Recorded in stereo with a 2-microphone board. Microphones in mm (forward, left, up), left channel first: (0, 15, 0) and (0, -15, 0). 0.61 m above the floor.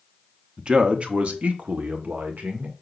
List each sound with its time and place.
0.6 s a man speaking: 25° right (ahead or behind), 1.1 m; by 2.7 s 65° right (ahead or behind), 2.5 m